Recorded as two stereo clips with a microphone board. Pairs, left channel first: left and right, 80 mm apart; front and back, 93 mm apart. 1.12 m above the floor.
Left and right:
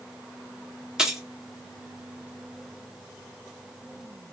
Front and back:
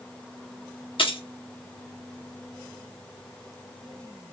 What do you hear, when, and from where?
1.0 s keys jangling: 10° right, 0.9 m